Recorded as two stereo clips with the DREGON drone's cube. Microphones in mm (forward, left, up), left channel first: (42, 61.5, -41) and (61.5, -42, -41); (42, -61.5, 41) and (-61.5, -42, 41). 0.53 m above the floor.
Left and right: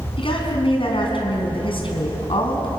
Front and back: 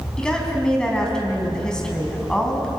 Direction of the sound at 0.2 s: 70° left.